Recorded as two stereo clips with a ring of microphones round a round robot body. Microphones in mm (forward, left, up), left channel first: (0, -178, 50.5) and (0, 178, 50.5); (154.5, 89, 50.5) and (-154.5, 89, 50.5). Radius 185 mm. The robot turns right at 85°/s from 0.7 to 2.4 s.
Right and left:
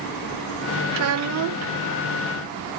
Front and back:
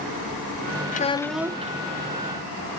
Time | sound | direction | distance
0.9 | a child speaking | 55° left | 0.6 m